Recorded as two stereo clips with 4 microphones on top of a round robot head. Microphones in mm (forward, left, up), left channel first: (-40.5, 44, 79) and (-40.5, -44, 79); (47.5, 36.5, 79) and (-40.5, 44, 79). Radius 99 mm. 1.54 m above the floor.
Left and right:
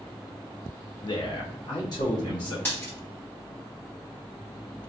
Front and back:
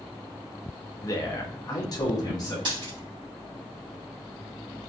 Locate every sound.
1.0 s a man speaking: 45° left, 0.6 m; by 2.5 s 40° left, 1.5 m
2.6 s a dropped coin: 155° left, 1.3 m